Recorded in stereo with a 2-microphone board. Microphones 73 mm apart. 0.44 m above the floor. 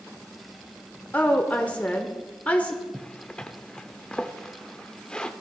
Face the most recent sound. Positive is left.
turn(degrees=15)  # may be behind; listen again after turning